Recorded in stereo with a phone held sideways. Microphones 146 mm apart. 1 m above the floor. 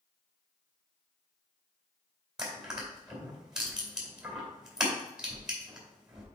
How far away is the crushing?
About 2.5 m.